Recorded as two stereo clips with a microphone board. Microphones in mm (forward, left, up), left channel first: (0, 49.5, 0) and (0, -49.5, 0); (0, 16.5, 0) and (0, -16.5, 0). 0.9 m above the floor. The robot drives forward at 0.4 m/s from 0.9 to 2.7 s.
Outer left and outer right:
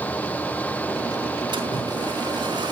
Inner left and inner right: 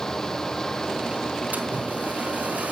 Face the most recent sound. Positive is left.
turn(degrees=-45)  # may be behind; listen again after turning